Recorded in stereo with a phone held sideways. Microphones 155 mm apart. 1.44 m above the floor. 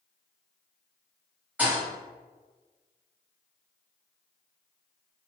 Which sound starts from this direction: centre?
A thud, at 1.6 s.